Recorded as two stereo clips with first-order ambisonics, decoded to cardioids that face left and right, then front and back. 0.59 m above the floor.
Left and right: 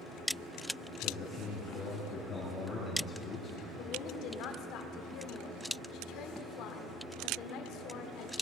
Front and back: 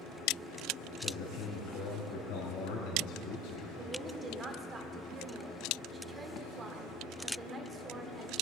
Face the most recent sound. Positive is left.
turn(degrees=115)